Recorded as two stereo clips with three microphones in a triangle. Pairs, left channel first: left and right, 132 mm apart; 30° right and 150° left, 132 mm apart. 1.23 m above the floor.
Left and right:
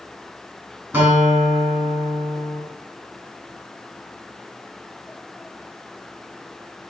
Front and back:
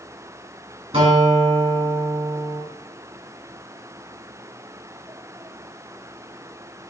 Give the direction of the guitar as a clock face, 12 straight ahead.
6 o'clock.